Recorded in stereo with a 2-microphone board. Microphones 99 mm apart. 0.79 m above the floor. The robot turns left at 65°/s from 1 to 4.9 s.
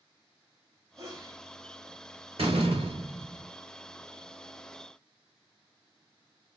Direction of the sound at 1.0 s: 35° right (ahead or behind).